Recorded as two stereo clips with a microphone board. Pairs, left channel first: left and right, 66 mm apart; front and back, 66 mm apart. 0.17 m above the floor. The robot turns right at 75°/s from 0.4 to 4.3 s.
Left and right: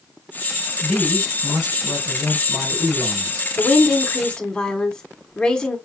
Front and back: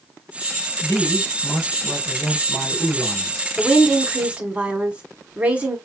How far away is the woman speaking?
About 1.1 m.